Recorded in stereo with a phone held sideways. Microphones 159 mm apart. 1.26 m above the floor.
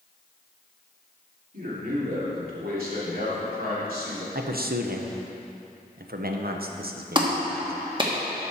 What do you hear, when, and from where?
1.5 s a man speaking: 65° right (ahead or behind), 3 m
4.3 s a man speaking: 70° right (ahead or behind), 0.9 m
7.2 s a clap: 30° right (ahead or behind), 1.4 m